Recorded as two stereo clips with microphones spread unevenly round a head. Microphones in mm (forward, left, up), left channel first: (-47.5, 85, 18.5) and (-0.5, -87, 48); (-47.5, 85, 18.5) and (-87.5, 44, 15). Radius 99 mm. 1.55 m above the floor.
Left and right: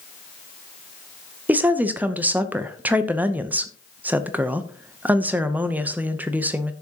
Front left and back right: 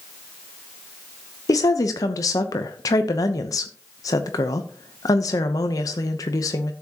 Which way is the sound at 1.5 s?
10° left.